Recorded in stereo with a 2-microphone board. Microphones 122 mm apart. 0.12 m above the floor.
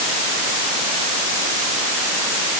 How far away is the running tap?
No running tap in this recording.